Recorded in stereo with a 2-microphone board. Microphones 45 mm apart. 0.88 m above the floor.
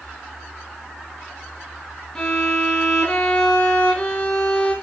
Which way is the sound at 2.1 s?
15° left (ahead or behind).